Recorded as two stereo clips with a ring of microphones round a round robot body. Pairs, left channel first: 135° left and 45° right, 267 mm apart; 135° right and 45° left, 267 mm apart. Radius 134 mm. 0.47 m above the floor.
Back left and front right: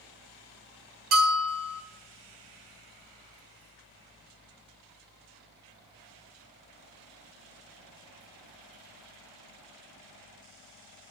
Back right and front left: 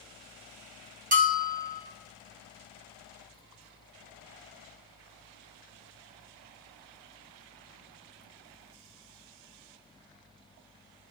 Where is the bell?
15° right, 1.4 m.